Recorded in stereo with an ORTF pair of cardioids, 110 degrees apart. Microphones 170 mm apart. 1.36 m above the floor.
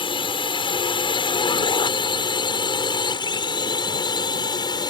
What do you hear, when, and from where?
0.0 s a drone: 30° left; by 4.9 s 25° left